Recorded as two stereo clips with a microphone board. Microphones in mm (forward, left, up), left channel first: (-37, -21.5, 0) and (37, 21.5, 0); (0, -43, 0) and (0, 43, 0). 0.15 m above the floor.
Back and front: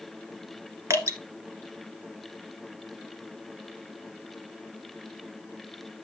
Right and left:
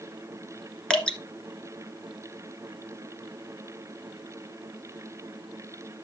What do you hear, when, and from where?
0.9 s dripping: 15° right, 1.6 m